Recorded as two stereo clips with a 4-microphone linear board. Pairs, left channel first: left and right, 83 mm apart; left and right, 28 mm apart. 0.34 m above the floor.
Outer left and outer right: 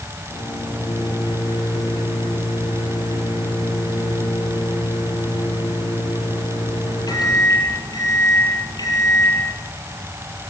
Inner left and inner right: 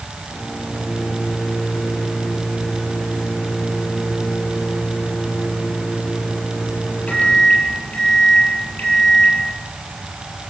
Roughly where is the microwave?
Left.